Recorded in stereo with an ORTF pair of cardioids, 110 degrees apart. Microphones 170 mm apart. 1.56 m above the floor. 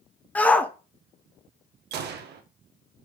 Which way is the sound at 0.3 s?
10° left.